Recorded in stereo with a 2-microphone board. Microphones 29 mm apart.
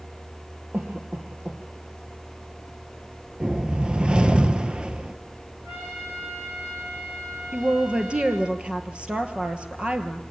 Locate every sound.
0.7 s a cough: 65° right (ahead or behind), 3 m
3.4 s a whoosh: 35° right (ahead or behind), 0.9 m
5.6 s a trumpet: 75° right (ahead or behind), 9.5 m
7.5 s a woman speaking: 40° right (ahead or behind), 2.5 m